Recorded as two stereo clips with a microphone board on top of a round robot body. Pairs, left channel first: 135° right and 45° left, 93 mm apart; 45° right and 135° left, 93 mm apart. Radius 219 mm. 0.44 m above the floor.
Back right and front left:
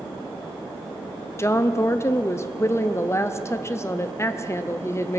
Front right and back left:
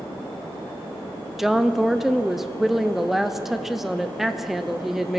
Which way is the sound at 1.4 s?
140° right.